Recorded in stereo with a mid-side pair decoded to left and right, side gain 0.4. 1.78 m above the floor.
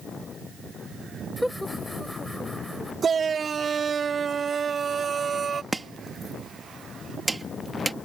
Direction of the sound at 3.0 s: 45° right.